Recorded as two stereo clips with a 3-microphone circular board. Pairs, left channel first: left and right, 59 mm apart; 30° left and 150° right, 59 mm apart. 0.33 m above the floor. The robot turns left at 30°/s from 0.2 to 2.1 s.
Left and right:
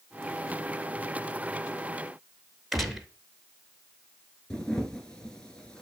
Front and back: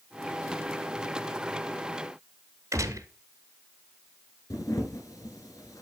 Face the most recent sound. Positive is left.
turn(degrees=10)